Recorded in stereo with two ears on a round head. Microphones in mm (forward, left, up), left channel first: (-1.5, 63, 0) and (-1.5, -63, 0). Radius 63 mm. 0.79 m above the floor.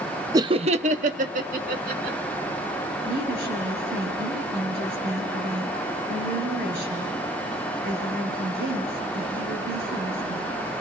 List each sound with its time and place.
0.3 s laughter: 25° right (ahead or behind), 0.6 m; by 2.2 s 65° right (ahead or behind), 2.5 m
3.0 s a woman speaking: 75° right (ahead or behind), 10 m